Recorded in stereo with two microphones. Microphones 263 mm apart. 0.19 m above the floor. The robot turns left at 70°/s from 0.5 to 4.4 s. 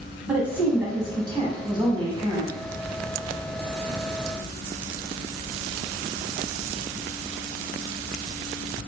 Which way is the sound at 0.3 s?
5° right (ahead or behind).